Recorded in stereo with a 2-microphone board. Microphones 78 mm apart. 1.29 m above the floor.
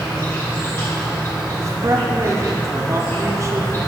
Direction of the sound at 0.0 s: 35° left (ahead or behind).